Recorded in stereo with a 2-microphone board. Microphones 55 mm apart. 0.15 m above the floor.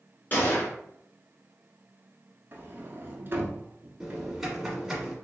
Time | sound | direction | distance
0.3 | a gunshot | 35° left (ahead or behind) | 1.4 m
2.5 | a sliding door | 40° right (ahead or behind) | 0.8 m
4.0 | typing on a keyboard | 5° right (ahead or behind) | 1.4 m